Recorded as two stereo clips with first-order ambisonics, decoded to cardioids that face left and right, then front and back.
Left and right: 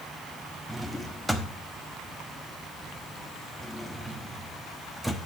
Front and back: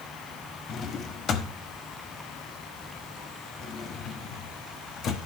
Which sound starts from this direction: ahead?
A drawer, at 0.7 s.